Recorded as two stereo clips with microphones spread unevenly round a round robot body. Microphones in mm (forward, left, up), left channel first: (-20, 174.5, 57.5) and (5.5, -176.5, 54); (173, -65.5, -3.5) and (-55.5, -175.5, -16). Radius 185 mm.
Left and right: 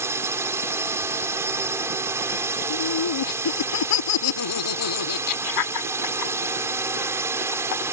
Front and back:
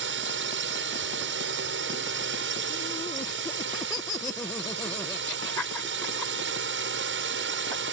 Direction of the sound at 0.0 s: 165° right.